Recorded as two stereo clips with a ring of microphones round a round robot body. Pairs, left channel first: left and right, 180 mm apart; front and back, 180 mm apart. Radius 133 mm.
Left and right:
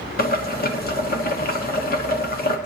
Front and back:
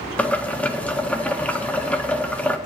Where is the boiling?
80° left, 1.6 m.